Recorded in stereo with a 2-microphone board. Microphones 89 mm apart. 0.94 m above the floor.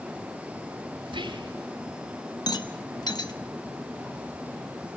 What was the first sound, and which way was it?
Whispering, 70° right (ahead or behind).